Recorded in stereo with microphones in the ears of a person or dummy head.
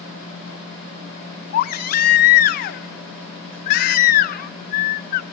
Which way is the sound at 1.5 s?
50° left (ahead or behind).